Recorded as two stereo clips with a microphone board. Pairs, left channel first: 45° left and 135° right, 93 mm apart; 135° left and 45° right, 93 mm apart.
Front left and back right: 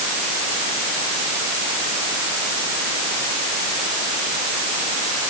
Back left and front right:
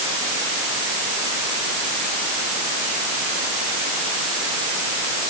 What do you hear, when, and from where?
Only background noise.